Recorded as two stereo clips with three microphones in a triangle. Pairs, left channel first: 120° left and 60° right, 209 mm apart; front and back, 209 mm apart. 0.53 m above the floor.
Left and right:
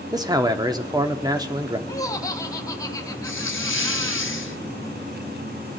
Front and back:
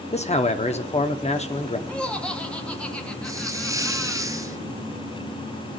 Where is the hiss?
105° left, 0.9 m.